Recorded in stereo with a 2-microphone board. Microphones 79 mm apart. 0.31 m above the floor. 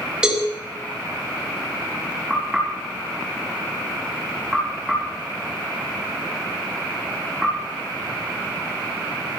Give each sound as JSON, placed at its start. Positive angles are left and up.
{"t": 0.2, "sound": "a cowbell", "side_deg": -10, "distance_m": 5.5}
{"t": 2.3, "sound": "knocking", "side_deg": -10, "distance_m": 5.0}